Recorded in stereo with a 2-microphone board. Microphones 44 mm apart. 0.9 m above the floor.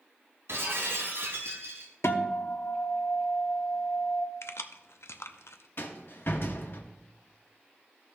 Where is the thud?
No thud in this recording.